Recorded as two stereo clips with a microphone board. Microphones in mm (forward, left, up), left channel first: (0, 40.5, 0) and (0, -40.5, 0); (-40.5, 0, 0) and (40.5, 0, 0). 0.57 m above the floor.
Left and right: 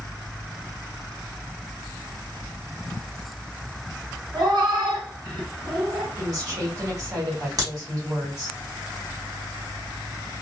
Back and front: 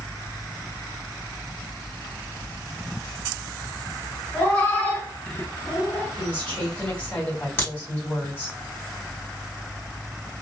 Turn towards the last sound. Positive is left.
turn(degrees=-120)